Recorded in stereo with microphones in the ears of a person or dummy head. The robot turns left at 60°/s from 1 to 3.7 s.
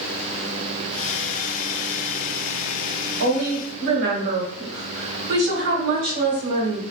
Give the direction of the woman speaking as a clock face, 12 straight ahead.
3 o'clock.